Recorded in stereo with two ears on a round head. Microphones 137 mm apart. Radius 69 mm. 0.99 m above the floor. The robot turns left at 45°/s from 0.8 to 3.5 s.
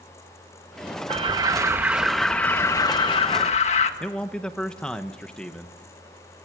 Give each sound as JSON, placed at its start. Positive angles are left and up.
{"t": 1.1, "sound": "an alarm", "azimuth_deg": -130, "distance_m": 1.6}
{"t": 4.0, "sound": "a man speaking", "side_deg": 5, "distance_m": 1.0}